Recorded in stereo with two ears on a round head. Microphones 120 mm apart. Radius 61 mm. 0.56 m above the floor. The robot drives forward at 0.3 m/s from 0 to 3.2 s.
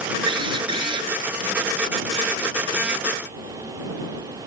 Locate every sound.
0.3 s a drill: 40° right (ahead or behind)